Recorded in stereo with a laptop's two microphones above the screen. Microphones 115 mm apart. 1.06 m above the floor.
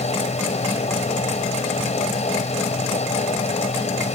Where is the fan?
80° left.